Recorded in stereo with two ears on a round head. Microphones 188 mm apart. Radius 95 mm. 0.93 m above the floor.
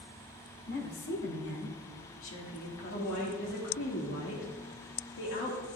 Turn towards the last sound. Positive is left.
turn(degrees=65)  # may be behind; listen again after turning